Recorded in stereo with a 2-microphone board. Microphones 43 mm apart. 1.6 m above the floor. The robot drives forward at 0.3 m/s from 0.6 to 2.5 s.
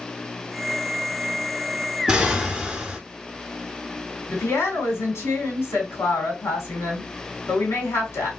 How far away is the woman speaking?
About 1.5 m.